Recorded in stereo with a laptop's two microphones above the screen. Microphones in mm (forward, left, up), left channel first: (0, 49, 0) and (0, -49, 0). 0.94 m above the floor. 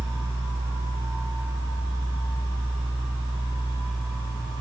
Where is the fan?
55° left (ahead or behind), 5 m.